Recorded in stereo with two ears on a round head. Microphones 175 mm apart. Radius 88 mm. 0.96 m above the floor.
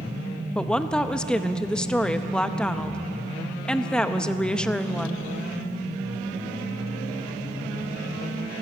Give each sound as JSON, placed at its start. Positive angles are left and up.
{"t": 0.6, "sound": "a woman speaking", "side_deg": 5, "distance_m": 0.7}